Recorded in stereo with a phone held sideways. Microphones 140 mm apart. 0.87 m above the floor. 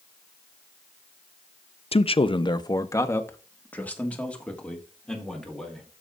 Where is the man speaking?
45° left (ahead or behind), 0.5 m; by 5.9 s 5° left (ahead or behind), 2.5 m.